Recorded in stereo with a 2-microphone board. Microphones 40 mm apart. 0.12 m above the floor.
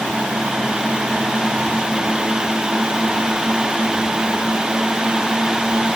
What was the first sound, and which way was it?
Only background noise.